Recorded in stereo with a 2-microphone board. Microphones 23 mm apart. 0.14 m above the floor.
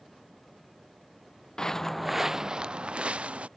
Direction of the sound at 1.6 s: 30° left (ahead or behind).